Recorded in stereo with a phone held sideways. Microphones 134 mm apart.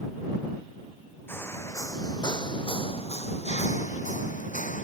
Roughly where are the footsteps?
Centre.